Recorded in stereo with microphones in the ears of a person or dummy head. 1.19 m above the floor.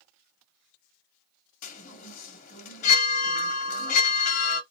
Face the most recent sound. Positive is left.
turn(degrees=45)  # may be behind; listen again after turning